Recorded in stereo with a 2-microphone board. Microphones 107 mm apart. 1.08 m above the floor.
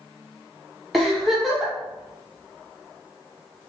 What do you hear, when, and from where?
0.9 s a giggle: centre (ahead or behind), 0.7 m